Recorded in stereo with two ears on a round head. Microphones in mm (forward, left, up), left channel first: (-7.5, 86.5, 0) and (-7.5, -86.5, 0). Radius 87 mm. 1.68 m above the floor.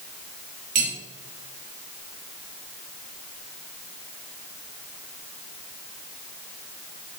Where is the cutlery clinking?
45° right (ahead or behind), 2.5 m.